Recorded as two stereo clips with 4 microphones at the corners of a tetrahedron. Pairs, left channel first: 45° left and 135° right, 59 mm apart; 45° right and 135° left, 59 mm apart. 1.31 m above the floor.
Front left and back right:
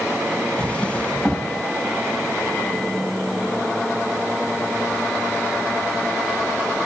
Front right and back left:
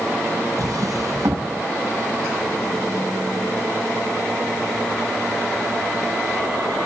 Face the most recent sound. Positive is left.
turn(degrees=115)